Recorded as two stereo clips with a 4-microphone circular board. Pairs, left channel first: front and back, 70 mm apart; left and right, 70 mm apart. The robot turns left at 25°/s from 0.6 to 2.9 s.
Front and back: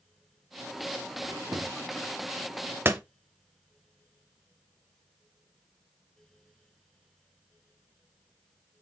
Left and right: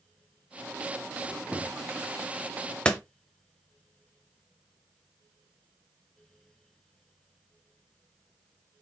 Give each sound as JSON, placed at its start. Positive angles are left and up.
{"t": 1.2, "sound": "a squeak", "azimuth_deg": -160, "distance_m": 0.8}
{"t": 2.9, "sound": "a door slam", "azimuth_deg": 155, "distance_m": 0.6}